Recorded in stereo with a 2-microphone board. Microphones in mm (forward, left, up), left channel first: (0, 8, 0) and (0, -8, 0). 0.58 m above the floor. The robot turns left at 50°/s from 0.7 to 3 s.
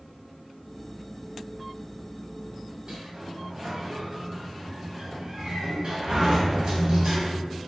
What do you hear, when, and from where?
2.9 s a sliding door: 55° right (ahead or behind), 1.5 m